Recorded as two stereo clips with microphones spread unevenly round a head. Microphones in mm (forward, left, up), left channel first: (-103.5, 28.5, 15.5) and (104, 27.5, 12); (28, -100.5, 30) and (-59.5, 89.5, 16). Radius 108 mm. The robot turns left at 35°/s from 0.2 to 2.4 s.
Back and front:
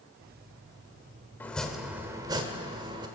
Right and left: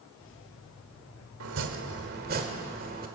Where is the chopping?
100° left, 1.3 m; by 3.1 s 65° left, 1.3 m.